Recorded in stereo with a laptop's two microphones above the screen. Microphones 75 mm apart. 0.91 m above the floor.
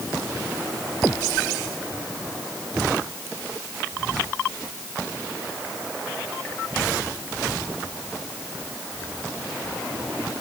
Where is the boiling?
I don't hear boiling.